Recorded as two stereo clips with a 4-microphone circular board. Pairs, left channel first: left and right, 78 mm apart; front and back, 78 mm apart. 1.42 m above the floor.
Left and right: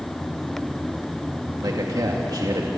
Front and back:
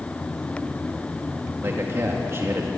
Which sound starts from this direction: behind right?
A man speaking, at 1.6 s.